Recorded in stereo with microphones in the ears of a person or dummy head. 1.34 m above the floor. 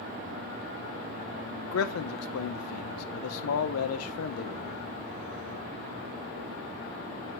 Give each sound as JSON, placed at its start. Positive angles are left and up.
{"t": 1.7, "sound": "a man speaking", "side_deg": 85, "distance_m": 0.8}